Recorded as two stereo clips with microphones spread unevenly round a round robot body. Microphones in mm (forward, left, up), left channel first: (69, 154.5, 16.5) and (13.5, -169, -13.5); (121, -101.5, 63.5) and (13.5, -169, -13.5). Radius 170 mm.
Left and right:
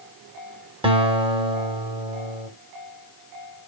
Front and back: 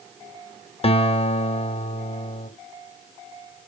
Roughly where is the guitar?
Ahead right.